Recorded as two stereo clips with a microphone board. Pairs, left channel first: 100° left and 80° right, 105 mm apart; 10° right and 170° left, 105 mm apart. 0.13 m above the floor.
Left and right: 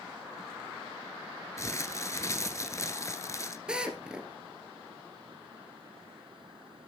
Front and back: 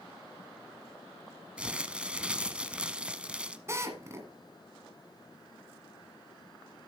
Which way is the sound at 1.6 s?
100° left.